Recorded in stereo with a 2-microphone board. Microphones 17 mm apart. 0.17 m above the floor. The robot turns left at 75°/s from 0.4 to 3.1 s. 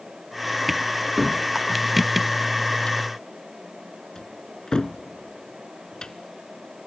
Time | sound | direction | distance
1.2 | a cupboard door | 15° right (ahead or behind) | 0.8 m